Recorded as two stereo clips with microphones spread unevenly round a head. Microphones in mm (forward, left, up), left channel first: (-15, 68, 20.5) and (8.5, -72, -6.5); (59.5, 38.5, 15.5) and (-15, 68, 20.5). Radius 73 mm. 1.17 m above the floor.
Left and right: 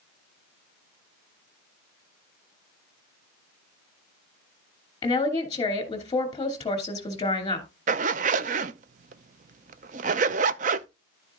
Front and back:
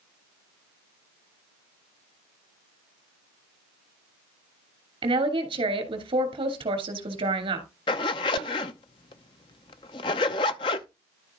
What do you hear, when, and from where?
5.0 s a woman speaking: 165° left, 2.5 m
7.9 s a zipper: 50° right, 0.5 m